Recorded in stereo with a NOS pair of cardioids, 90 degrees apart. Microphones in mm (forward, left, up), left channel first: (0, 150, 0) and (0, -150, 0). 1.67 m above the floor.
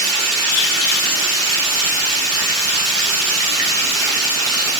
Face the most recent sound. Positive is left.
turn(degrees=-50)